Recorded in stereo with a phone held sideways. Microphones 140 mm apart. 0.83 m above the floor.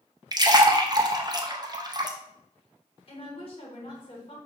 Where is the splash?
30° right (ahead or behind), 0.5 m.